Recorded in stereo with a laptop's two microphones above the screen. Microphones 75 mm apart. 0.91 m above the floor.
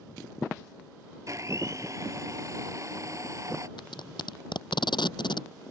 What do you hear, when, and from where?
1.3 s a blender: 45° right (ahead or behind)
3.8 s tape being pulled: 80° left